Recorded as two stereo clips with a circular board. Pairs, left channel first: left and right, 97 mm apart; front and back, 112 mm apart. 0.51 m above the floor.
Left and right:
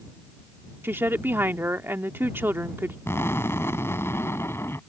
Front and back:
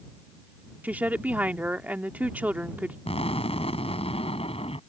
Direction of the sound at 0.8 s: 120° right.